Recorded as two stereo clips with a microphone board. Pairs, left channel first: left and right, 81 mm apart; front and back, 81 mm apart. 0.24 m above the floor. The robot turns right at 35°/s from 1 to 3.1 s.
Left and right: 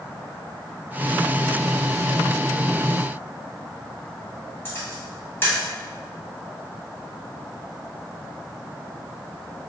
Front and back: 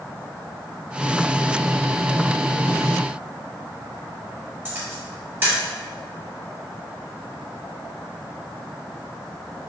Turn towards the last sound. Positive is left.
turn(degrees=130)